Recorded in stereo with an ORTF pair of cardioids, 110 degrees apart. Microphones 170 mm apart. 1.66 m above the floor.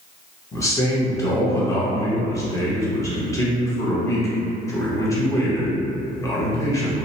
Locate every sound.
0.5 s a man speaking: 20° left, 1.0 m